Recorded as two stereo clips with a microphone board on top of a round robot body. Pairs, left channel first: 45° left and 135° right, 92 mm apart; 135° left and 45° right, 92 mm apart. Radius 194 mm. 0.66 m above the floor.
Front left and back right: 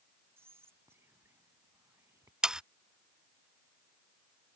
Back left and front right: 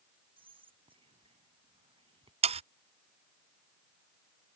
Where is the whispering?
70° right.